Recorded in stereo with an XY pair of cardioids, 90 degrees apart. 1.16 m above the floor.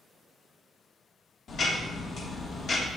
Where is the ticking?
60° left, 1.6 m.